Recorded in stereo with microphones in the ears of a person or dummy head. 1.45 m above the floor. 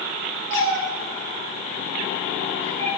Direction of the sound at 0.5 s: 45° right (ahead or behind).